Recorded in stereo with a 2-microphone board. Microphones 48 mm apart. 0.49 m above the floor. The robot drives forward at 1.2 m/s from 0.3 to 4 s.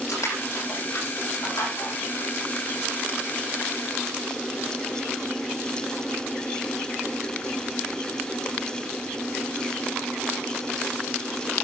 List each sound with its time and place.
0.1 s crushing: 85° left, 9.5 m; by 1.9 s 80° left, 10 m